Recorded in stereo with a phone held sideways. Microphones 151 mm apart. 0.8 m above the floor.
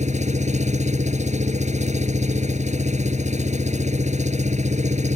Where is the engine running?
55° right (ahead or behind).